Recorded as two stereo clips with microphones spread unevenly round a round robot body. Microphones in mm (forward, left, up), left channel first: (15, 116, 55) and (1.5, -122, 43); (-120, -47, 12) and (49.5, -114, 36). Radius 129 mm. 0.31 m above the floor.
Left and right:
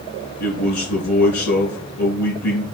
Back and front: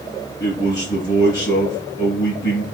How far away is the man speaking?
About 3.5 m.